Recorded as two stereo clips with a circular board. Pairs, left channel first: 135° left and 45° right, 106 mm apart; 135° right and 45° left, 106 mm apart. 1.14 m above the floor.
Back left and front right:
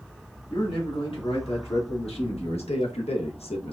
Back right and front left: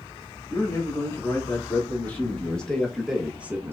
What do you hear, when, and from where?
0.5 s a man speaking: 160° left, 2 m; by 3.7 s 110° left, 0.7 m